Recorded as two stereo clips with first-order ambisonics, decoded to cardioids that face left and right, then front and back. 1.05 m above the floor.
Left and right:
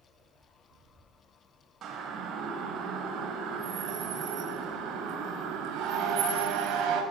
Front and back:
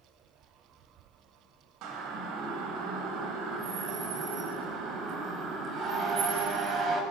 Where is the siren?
145° right, 6 m; by 7.0 s 125° right, 7 m.